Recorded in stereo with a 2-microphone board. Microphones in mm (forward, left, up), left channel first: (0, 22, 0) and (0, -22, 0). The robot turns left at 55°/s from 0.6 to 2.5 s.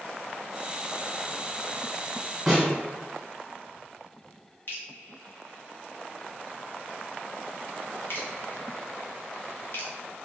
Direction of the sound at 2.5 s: 5° right (ahead or behind).